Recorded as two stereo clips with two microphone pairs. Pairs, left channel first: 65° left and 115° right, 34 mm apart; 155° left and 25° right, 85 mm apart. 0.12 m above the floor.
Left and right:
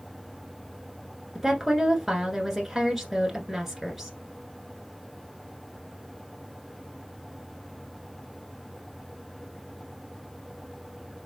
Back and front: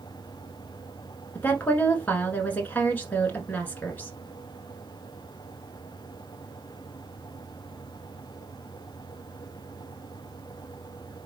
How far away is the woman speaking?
About 1.1 m.